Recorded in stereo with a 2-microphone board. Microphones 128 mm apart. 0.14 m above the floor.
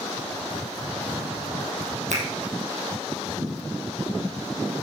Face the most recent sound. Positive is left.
turn(degrees=-75)  # may be behind; listen again after turning